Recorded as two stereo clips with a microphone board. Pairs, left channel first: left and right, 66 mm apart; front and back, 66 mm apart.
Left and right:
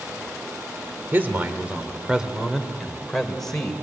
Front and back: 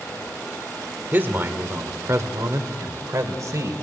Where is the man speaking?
135° right, 1.6 m; by 3.7 s 170° left, 2 m.